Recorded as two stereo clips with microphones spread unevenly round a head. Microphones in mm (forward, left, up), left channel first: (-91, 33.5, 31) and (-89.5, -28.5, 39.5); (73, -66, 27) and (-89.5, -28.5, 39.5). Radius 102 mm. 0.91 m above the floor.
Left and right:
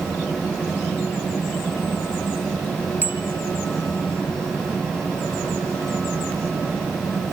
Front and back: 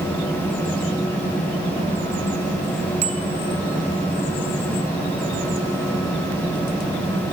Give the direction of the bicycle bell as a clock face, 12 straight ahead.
5 o'clock.